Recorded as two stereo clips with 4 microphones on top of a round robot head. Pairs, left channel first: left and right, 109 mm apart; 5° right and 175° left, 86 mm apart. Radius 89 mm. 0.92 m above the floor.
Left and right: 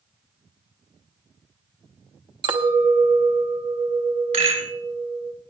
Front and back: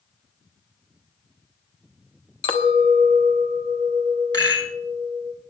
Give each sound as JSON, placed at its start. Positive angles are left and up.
{"t": 2.4, "sound": "a clink", "azimuth_deg": -40, "distance_m": 0.8}
{"t": 4.3, "sound": "a rattle", "azimuth_deg": -65, "distance_m": 6.0}